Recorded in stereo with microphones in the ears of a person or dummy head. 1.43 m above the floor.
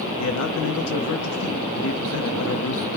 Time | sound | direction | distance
0.2 | a man speaking | 85° left | 0.7 m